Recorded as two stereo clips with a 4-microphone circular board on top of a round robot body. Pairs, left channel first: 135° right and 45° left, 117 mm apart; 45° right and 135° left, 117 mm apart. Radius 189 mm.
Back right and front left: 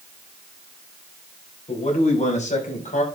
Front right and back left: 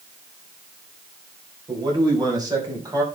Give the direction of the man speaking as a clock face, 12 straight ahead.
6 o'clock.